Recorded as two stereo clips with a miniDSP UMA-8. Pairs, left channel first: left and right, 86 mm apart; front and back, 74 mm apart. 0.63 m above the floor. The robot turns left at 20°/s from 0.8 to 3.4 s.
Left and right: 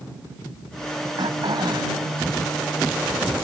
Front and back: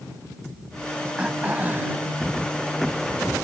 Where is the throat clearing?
105° right; by 2.0 s 120° right.